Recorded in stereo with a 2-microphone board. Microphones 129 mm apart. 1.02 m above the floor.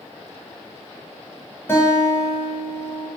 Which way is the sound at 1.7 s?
20° left (ahead or behind).